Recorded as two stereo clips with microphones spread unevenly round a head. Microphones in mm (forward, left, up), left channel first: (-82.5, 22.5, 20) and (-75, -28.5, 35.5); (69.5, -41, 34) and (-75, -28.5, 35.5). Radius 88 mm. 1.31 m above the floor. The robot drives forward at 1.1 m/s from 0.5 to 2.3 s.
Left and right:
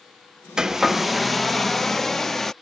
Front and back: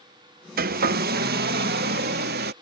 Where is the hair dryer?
160° right; by 2.5 s 175° right.